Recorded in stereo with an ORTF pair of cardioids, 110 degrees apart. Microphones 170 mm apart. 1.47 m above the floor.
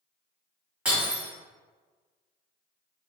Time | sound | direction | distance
0.8 | breaking glass | 10° right | 1.8 m